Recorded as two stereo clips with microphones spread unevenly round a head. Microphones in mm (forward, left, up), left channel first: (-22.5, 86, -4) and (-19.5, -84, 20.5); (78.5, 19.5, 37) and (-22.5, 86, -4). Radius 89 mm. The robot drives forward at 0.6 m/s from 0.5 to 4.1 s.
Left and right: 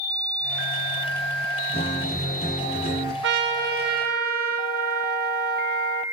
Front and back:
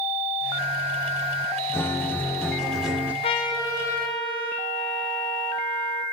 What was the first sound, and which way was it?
A guitar, 30° left.